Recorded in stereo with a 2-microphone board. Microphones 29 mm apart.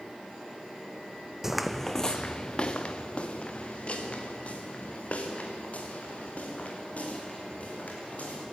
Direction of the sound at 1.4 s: 10° right (ahead or behind).